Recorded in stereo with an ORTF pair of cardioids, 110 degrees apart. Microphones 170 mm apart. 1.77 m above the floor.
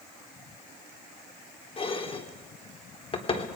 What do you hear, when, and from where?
1.8 s dishes clattering: 35° left, 3.5 m